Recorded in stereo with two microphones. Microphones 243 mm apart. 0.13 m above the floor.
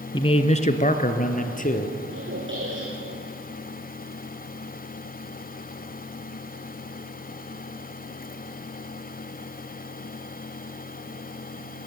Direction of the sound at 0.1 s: 20° left (ahead or behind).